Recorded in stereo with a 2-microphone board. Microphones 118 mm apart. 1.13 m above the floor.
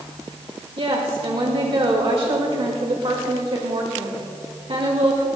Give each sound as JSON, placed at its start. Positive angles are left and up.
{"t": 0.8, "sound": "a woman speaking", "side_deg": -55, "distance_m": 1.9}